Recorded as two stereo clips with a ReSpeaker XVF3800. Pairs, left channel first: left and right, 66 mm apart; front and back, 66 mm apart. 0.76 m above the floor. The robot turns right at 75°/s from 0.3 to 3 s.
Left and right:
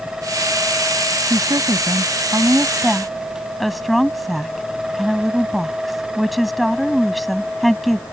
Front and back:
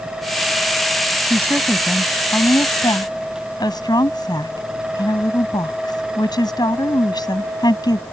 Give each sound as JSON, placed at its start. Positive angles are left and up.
{"t": 1.3, "sound": "a woman speaking", "azimuth_deg": -130}